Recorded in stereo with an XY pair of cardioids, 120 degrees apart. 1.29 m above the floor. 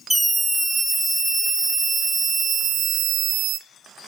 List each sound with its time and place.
0.1 s a scream: 5° right, 2.5 m; by 3.6 s 75° right, 1.1 m